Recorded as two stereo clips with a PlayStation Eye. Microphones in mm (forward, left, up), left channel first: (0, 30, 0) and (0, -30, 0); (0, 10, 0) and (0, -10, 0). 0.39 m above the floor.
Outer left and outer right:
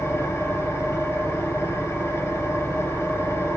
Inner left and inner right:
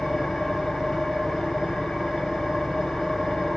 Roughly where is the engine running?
Left.